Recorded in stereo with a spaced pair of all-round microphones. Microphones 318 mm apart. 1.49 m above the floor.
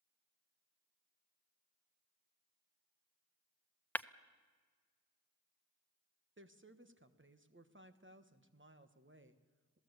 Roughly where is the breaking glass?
Centre.